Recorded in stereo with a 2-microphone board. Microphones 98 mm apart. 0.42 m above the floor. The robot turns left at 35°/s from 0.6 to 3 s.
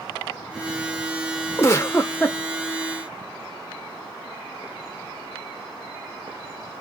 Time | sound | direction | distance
1.6 | a giggle | 30° left (ahead or behind) | 0.7 m